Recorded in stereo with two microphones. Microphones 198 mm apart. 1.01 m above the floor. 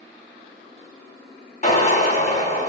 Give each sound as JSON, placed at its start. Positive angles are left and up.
{"t": 1.6, "sound": "a drill", "side_deg": 35, "distance_m": 3.5}